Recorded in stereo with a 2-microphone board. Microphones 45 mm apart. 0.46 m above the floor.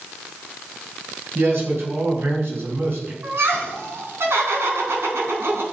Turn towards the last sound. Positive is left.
turn(degrees=-70)  # may be behind; listen again after turning